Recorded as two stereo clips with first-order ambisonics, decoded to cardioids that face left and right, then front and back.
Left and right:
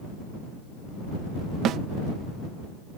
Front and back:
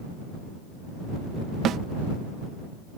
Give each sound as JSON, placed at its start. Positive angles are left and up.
{"t": 1.6, "sound": "a snare drum", "azimuth_deg": -135}